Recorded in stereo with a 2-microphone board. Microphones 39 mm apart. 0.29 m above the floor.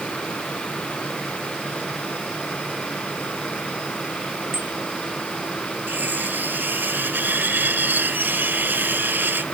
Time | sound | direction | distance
4.5 | a bicycle bell | 60° right (ahead or behind) | ?
5.9 | cutlery clinking | 60° right (ahead or behind) | ?